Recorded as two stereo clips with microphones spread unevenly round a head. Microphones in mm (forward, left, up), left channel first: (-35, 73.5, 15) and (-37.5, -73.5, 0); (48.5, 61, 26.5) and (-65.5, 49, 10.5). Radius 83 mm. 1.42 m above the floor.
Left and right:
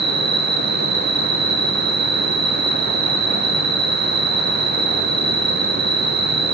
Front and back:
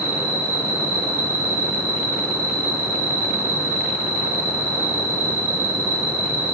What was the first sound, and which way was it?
An insect, 100° right.